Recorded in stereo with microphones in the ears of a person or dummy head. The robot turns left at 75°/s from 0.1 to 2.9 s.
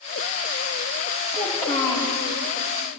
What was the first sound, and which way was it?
A child speaking, 160° right.